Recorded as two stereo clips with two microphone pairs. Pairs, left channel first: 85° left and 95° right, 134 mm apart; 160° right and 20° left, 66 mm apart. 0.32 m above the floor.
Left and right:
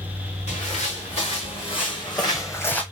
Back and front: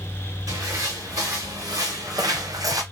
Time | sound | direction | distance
0.5 | footsteps | 50° left | 2 m